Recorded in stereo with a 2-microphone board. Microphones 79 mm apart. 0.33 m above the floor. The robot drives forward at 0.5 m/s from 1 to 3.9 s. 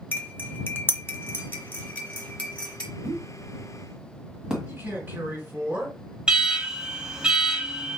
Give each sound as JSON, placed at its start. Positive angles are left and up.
{"t": 0.1, "sound": "cutlery clinking", "side_deg": 30, "distance_m": 0.7}
{"t": 3.0, "sound": "a pop", "side_deg": -15, "distance_m": 1.2}
{"t": 4.7, "sound": "a man speaking", "side_deg": -30, "distance_m": 3.5}
{"t": 6.3, "sound": "an alarm", "side_deg": -15, "distance_m": 1.3}